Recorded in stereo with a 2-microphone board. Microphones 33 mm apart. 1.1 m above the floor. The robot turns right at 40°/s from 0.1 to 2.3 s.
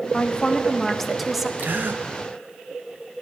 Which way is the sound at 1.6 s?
60° right (ahead or behind).